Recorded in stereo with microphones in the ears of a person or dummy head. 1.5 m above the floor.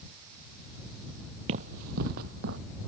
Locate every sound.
1.5 s running footsteps: 50° right (ahead or behind); by 2.6 s 65° right (ahead or behind)